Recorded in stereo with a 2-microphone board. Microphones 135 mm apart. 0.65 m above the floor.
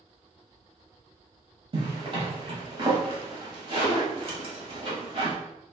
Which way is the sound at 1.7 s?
45° right (ahead or behind).